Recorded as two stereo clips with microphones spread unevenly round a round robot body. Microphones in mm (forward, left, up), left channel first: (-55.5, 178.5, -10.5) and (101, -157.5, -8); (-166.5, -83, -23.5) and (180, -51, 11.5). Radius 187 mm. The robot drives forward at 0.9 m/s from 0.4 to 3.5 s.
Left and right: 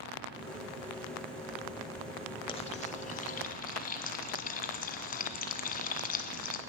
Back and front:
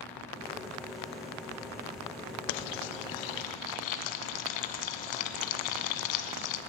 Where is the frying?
165° right, 0.6 m; by 6.6 s 175° right, 1.5 m.